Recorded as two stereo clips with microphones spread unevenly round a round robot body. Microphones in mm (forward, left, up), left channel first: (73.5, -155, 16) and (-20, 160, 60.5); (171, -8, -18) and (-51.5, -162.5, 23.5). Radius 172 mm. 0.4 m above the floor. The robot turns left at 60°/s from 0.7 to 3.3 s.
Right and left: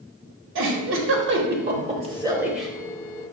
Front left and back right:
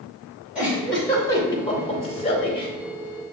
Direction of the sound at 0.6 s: 115° left.